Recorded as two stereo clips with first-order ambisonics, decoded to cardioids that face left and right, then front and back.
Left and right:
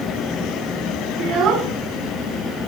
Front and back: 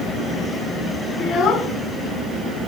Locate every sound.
1.2 s a child speaking: 60° right, 0.9 m